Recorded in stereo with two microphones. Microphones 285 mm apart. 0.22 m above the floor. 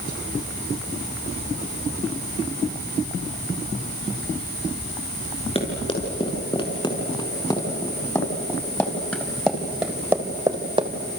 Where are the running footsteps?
20° left (ahead or behind), 7.5 m; by 10.9 s 20° right (ahead or behind), 2.5 m.